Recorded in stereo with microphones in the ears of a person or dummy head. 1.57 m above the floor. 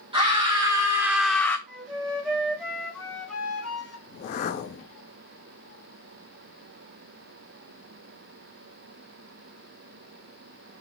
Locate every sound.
0.1 s a scream: 20° right (ahead or behind), 1.1 m; by 1.6 s 25° left (ahead or behind), 0.5 m
1.7 s a flute: 10° left (ahead or behind), 1.9 m
4.1 s a whoosh: 30° left (ahead or behind), 0.5 m